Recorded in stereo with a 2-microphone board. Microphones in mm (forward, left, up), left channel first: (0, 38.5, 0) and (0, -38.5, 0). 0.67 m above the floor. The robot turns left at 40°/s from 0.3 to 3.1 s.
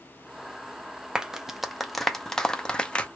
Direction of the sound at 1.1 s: 10° right (ahead or behind).